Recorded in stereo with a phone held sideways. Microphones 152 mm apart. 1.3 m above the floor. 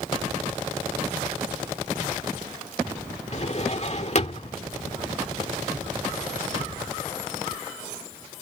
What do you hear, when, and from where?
3.3 s a drawer: 50° left (ahead or behind)